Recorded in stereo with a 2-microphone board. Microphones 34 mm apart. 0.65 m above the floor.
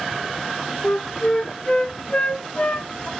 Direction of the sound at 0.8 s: 30° left (ahead or behind).